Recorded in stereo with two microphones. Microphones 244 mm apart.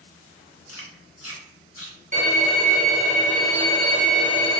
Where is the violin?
30° right (ahead or behind), 1.1 m.